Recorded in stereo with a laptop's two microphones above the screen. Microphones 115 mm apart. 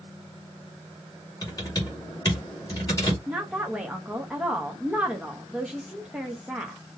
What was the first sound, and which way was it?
Typing on a keyboard, 30° left (ahead or behind).